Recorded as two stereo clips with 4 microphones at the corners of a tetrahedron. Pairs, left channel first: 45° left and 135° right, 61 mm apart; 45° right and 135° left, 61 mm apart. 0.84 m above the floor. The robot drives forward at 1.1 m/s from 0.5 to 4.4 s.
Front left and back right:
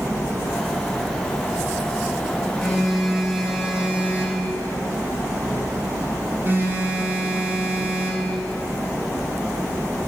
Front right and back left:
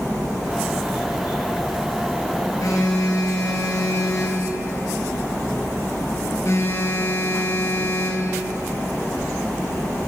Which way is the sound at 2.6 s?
40° right.